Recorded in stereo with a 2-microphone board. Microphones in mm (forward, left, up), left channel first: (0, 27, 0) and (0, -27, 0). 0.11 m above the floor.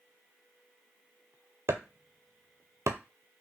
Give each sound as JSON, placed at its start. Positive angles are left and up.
{"t": 1.7, "sound": "chopping", "side_deg": -60, "distance_m": 0.5}